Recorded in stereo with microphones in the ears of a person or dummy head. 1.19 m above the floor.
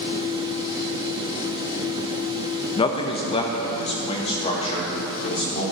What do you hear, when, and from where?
2.8 s a man speaking: 30° left (ahead or behind), 0.6 m; by 5.6 s 40° left (ahead or behind), 2.5 m